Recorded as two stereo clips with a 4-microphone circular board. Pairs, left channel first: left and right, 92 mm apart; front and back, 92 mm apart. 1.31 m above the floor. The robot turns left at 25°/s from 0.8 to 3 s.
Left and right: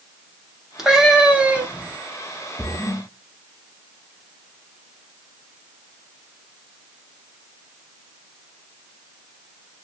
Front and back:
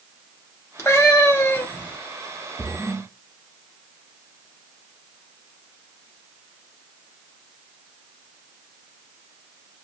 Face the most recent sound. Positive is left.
turn(degrees=65)